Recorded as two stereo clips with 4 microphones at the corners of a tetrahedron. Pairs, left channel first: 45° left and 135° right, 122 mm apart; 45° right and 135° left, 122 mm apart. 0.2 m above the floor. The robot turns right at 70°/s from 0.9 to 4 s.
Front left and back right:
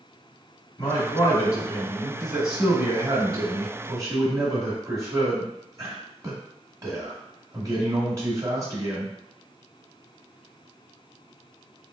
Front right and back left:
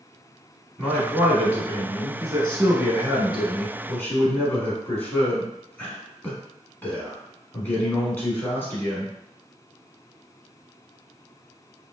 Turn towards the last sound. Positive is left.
turn(degrees=-105)